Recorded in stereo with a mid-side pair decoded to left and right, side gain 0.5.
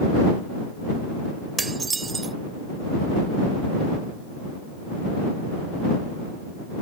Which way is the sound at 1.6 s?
30° right.